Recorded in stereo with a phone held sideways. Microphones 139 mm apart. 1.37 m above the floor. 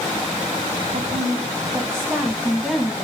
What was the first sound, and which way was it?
A woman speaking, 65° right (ahead or behind).